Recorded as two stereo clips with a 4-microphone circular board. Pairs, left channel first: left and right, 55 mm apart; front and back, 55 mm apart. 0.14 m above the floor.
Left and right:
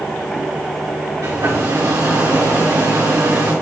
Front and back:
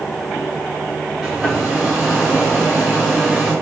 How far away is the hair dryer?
About 4 m.